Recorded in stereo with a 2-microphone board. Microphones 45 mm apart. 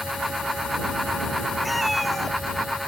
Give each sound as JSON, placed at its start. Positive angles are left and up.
{"t": 1.6, "sound": "a cat meowing", "side_deg": 0}